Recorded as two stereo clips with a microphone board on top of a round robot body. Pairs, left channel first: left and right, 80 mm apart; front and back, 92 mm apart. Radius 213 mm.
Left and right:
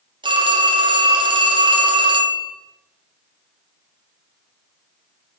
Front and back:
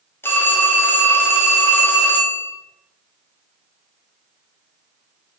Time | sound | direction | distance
0.2 | a phone ringing | 65° right | 1.5 m